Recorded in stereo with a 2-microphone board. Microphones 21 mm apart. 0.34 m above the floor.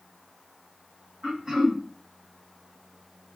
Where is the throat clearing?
30° right (ahead or behind), 1.7 m.